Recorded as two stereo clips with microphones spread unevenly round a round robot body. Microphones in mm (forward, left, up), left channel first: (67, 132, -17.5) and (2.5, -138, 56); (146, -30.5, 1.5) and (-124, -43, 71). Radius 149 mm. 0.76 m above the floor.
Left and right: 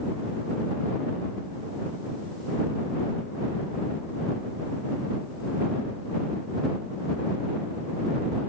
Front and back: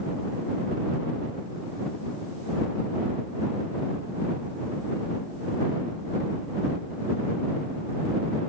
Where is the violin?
No violin in this recording.